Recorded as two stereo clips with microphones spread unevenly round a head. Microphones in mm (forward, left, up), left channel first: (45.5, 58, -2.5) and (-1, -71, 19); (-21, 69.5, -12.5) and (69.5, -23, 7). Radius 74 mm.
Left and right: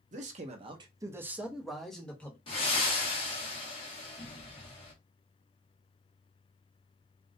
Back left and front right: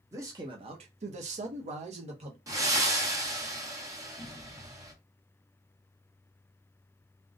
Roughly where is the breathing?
Ahead.